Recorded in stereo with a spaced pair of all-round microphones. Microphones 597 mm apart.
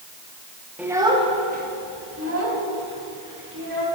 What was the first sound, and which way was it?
A child speaking, centre (ahead or behind).